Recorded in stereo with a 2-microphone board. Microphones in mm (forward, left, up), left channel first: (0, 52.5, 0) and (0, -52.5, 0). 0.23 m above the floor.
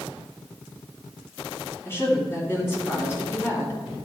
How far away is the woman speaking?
About 2.5 m.